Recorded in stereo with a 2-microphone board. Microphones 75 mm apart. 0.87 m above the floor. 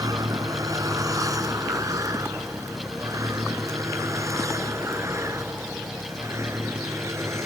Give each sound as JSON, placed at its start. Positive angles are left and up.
{"t": 0.0, "sound": "a vehicle", "side_deg": -55}